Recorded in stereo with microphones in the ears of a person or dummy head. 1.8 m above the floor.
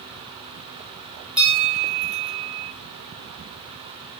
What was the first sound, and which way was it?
A bell, 10° right (ahead or behind).